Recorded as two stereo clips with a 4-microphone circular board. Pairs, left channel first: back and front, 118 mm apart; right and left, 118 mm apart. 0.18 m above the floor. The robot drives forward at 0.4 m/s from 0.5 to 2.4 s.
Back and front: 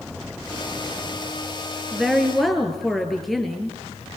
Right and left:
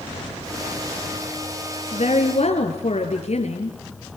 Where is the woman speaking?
90° right, 3.5 m.